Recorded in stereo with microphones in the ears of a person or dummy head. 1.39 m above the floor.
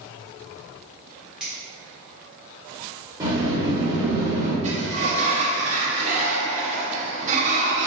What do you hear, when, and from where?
1.4 s a finger snap: 5° right (ahead or behind), 1.5 m
3.2 s a sliding door: 20° right (ahead or behind), 0.9 m
4.6 s a sliding door: 40° right (ahead or behind), 0.6 m